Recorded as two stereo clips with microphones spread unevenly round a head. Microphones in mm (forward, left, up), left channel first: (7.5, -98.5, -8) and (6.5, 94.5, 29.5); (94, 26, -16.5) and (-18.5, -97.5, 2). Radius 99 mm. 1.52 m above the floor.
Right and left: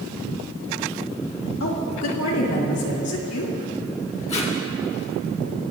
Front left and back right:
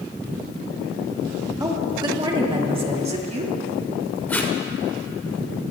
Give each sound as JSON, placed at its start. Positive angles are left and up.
{"t": 1.6, "sound": "a woman speaking", "azimuth_deg": -65, "distance_m": 2.5}
{"t": 4.3, "sound": "tape being pulled", "azimuth_deg": -30, "distance_m": 2.5}